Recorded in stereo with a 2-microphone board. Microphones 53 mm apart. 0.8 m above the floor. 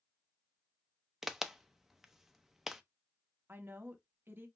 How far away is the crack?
About 0.6 m.